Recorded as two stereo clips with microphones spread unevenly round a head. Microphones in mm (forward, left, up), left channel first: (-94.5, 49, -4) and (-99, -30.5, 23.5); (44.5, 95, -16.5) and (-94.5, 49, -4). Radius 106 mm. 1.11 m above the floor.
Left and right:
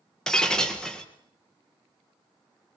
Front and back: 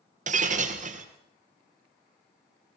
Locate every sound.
0.3 s breaking glass: 175° left, 3 m